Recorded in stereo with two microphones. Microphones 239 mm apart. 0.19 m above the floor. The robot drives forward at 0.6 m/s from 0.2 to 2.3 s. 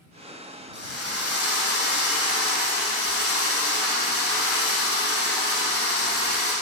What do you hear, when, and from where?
0.7 s a drill: 75° left (ahead or behind), 6 m; by 6.5 s 70° left (ahead or behind), 6.5 m